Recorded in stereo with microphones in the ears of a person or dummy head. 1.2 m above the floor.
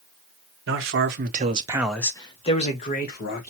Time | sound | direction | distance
0.7 | a man speaking | 65° right (ahead or behind) | 0.9 m